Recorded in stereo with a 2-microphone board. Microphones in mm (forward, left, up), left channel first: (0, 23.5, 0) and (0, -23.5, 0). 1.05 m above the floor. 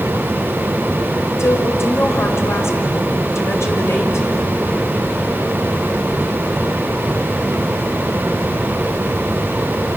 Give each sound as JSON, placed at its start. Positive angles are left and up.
{"t": 1.4, "sound": "a woman speaking", "side_deg": 70, "distance_m": 5.0}